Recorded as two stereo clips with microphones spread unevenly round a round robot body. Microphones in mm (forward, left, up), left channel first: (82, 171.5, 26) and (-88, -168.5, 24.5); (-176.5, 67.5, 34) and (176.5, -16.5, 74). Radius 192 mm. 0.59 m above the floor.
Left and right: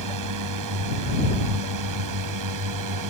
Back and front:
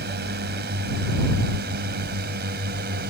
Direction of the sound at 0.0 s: 75° right.